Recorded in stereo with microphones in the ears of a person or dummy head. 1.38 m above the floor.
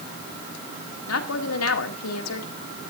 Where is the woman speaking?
80° left, 2 m.